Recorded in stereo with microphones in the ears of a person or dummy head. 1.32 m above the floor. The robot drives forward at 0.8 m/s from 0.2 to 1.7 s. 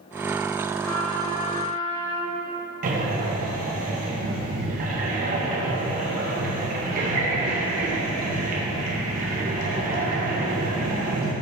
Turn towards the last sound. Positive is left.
turn(degrees=-50)  # may be behind; listen again after turning